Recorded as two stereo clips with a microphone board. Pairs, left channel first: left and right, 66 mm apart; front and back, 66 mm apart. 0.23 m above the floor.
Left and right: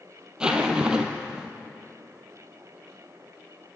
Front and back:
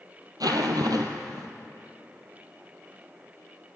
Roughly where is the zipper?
Behind.